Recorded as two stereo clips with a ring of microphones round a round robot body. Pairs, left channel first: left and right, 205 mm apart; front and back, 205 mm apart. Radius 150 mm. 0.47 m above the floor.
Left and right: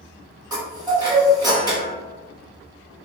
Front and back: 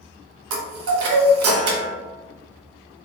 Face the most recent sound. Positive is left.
turn(degrees=-165)